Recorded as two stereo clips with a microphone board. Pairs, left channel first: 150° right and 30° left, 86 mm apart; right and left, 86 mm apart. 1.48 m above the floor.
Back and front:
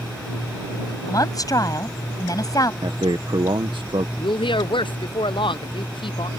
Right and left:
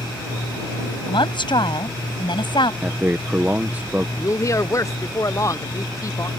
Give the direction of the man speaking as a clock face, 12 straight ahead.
11 o'clock.